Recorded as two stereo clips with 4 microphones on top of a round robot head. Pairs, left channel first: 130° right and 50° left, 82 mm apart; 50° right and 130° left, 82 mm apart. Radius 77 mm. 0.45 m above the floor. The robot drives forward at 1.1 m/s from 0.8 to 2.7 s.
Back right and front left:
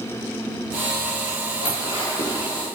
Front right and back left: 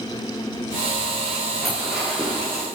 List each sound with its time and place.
1.6 s dishes clattering: 140° right, 5.5 m; by 2.5 s 145° right, 6.5 m